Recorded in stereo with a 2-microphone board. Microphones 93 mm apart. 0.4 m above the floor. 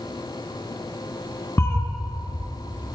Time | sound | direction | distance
1.6 | a cat meowing | 30° left (ahead or behind) | 1.4 m